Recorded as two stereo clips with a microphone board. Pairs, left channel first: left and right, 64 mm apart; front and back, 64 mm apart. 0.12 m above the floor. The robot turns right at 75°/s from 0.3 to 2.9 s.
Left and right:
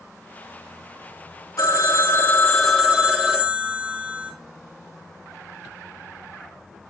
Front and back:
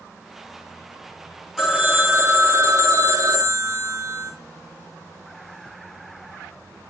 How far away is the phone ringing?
About 2.5 m.